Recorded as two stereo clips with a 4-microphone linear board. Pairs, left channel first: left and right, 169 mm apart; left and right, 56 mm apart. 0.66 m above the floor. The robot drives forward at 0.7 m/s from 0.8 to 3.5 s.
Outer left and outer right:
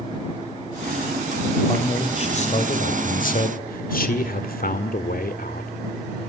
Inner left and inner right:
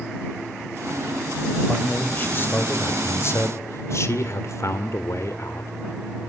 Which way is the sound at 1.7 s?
30° left (ahead or behind).